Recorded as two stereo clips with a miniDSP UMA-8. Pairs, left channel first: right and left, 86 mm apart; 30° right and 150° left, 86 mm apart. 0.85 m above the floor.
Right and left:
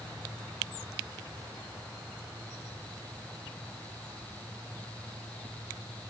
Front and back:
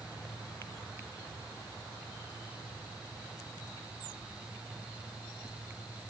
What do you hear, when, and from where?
Only background noise.